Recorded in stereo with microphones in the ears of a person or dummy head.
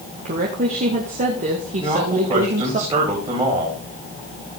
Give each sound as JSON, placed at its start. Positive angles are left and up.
{"t": 0.2, "sound": "a woman speaking", "side_deg": -45, "distance_m": 2.0}
{"t": 1.8, "sound": "a man speaking", "side_deg": -25, "distance_m": 4.5}